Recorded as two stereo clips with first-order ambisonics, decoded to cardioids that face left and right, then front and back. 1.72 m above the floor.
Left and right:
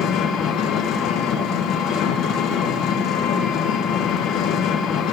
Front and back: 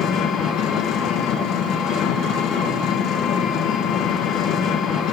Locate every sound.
0.0 s an engine running: 45° left, 1.2 m